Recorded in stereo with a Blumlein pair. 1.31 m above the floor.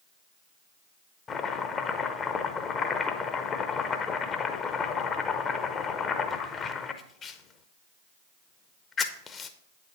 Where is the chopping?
25° left, 0.7 m.